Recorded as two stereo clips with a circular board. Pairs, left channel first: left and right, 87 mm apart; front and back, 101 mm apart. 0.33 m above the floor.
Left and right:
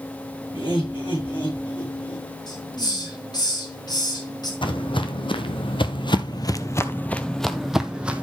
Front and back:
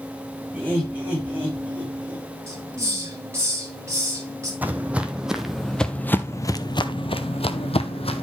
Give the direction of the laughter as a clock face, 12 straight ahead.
9 o'clock.